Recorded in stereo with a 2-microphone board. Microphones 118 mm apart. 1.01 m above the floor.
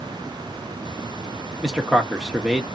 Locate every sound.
1.6 s a man speaking: centre (ahead or behind), 0.9 m